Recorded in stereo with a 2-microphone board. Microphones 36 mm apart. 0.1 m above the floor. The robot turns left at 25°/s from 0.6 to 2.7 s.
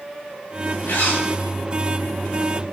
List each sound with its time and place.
0.9 s a zipper: 70° left (ahead or behind), 7 m; by 1.2 s 75° left (ahead or behind), 7 m